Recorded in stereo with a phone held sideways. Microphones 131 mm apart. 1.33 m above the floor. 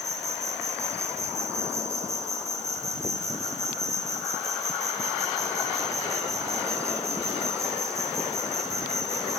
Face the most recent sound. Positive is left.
turn(degrees=-25)  # may be behind; listen again after turning